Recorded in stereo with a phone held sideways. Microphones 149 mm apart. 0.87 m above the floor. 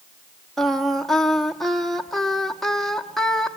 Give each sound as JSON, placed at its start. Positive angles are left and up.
{"t": 0.6, "sound": "singing", "side_deg": 0, "distance_m": 1.1}